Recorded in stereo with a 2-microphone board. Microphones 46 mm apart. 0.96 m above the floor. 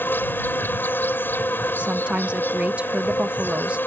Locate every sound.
0.0 s an insect: 50° left (ahead or behind)
1.8 s a woman speaking: 30° right (ahead or behind)